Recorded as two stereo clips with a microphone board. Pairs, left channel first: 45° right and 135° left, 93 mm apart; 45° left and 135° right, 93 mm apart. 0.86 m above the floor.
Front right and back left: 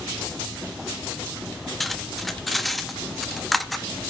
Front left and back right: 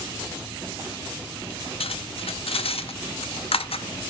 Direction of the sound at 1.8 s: 45° left.